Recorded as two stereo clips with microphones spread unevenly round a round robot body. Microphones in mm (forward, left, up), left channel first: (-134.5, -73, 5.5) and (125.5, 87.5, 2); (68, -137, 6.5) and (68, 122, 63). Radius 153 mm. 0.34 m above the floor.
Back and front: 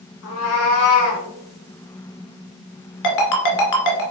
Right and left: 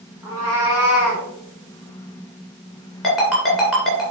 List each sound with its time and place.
0.2 s a cat meowing: 170° left, 2.5 m; by 1.2 s 175° right, 3.5 m
3.0 s a ringtone: straight behind, 2 m